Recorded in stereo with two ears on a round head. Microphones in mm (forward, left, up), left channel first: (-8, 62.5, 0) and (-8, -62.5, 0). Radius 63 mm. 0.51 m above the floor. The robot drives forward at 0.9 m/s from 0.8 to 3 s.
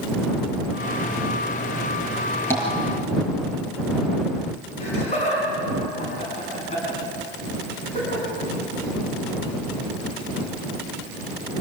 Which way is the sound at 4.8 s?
50° left (ahead or behind).